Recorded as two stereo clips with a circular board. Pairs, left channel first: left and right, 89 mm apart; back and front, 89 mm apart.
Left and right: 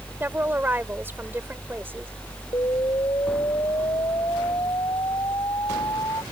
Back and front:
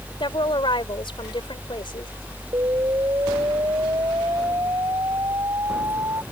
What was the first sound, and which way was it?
A woman speaking, 155° right.